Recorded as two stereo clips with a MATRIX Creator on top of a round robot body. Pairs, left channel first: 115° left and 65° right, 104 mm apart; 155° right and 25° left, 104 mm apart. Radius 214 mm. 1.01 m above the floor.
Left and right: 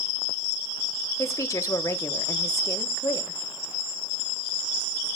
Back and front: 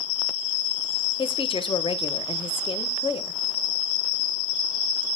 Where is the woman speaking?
175° left, 1.4 m.